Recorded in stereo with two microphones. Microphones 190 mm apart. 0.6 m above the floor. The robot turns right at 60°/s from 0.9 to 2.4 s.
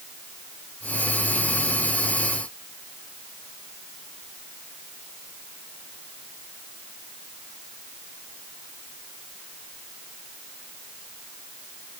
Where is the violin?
I don't hear a violin.